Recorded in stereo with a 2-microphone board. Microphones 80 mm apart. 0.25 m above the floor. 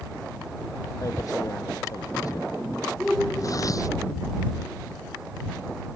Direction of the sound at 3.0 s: Centre (ahead or behind).